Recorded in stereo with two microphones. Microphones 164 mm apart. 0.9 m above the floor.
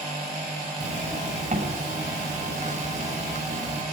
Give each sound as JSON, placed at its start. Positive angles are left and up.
{"t": 0.8, "sound": "a zipper", "side_deg": -45, "distance_m": 6.0}